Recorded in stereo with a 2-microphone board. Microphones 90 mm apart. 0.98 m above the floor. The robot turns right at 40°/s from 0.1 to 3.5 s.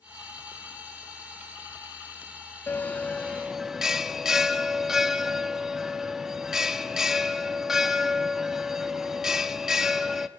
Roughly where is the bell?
Behind left.